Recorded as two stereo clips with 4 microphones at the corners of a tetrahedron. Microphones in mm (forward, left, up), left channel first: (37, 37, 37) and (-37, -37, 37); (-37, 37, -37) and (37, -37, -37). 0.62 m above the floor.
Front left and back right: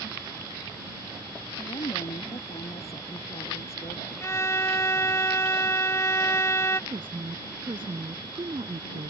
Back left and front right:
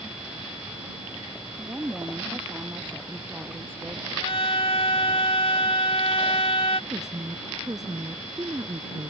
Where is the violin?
110° left.